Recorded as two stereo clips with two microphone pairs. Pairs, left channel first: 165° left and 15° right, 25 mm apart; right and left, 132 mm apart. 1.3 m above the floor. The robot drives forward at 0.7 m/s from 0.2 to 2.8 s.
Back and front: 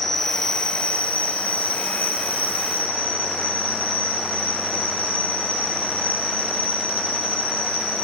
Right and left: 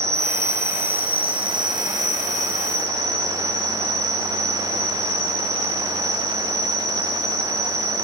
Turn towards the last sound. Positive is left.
turn(degrees=160)